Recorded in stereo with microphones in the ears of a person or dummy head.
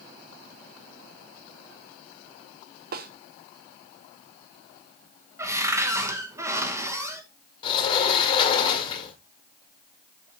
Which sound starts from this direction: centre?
A cupboard door, at 5.4 s.